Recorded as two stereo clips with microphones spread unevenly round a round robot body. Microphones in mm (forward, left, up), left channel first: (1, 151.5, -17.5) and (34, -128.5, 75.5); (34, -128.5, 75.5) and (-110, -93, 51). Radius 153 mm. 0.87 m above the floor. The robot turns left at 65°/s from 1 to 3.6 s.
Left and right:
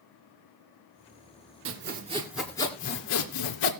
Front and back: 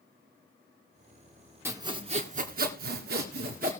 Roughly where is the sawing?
Behind right.